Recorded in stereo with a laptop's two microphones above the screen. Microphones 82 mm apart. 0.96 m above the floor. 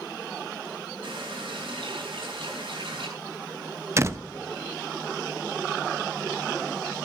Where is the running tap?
85° right, 5 m.